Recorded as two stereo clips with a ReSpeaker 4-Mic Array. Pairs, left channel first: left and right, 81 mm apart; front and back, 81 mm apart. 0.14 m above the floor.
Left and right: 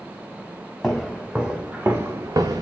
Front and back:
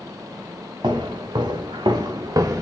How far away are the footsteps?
About 1.1 m.